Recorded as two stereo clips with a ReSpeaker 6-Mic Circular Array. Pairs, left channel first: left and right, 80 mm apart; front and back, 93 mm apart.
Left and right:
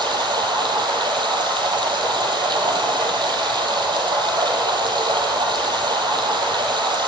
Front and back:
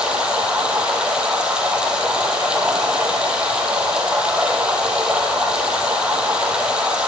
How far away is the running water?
About 2.5 m.